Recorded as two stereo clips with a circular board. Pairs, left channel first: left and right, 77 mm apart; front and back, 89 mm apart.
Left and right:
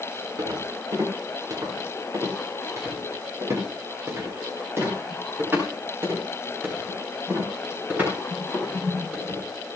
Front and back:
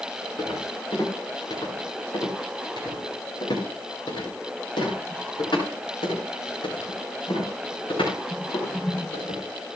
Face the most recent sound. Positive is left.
turn(degrees=-20)